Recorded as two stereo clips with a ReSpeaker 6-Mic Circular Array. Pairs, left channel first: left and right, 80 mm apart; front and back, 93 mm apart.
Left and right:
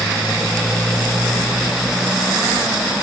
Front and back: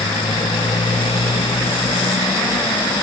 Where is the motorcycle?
5° left; by 3.0 s 5° right.